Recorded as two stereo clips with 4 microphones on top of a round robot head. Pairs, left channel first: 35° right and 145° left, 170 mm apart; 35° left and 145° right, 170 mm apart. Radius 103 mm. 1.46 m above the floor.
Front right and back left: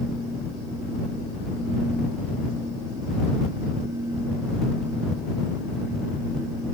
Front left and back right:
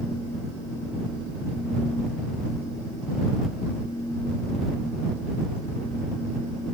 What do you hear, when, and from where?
Only background noise.